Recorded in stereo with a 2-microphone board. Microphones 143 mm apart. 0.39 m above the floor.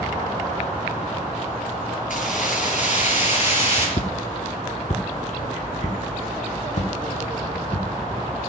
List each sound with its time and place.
2.1 s keys jangling: 70° left (ahead or behind), 6 m; by 3.9 s 45° left (ahead or behind), 7 m
4.0 s footsteps: 55° left (ahead or behind), 1.4 m